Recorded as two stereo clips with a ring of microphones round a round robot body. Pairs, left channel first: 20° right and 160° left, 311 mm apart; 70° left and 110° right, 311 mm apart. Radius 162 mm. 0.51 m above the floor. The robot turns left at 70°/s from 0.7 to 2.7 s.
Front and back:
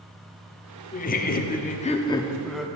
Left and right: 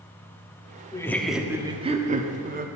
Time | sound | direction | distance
0.9 | laughter | 5° left | 0.8 m